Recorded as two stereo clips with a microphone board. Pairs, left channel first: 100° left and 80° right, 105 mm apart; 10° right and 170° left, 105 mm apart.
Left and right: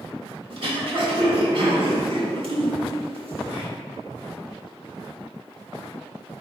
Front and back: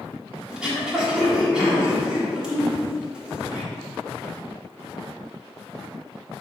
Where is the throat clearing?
110° right, 1.1 m.